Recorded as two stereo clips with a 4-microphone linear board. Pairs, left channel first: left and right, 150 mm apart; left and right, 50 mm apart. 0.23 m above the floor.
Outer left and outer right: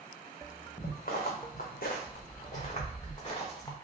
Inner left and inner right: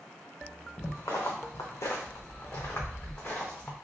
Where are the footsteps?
70° left (ahead or behind), 1.3 m; by 3.8 s 25° left (ahead or behind), 1.6 m.